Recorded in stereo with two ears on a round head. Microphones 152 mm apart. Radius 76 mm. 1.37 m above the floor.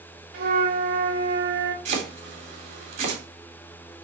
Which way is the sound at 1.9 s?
45° right (ahead or behind).